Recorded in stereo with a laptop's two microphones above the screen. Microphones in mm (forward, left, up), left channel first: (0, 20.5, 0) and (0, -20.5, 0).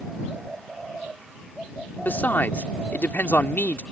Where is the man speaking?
55° left (ahead or behind).